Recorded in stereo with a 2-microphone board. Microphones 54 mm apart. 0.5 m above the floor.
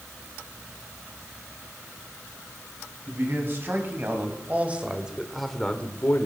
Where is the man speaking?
45° right (ahead or behind), 4.5 m; by 6.3 s 45° left (ahead or behind), 1.7 m.